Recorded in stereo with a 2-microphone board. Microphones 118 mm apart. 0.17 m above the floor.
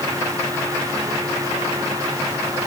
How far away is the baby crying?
I don't hear a baby crying.